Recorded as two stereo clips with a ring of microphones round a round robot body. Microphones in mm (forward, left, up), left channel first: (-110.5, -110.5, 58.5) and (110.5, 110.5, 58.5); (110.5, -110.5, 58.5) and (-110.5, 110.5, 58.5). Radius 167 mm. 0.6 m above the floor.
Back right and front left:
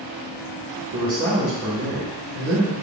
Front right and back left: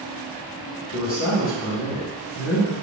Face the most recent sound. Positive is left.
turn(degrees=0)